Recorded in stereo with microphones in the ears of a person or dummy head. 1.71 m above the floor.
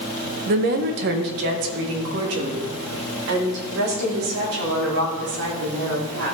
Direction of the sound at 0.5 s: 45° right (ahead or behind).